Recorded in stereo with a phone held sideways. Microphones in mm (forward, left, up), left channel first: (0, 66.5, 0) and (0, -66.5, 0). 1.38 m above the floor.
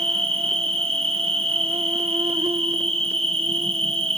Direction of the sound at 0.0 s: 45° right (ahead or behind).